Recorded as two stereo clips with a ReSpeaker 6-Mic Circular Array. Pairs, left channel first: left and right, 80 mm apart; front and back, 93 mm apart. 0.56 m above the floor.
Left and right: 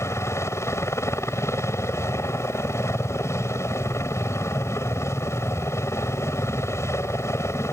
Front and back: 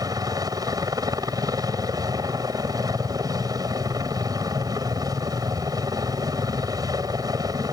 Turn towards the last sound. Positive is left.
turn(degrees=140)